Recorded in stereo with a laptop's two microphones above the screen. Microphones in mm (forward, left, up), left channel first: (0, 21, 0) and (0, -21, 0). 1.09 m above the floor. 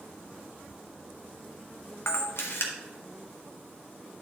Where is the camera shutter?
80° left, 1.2 m.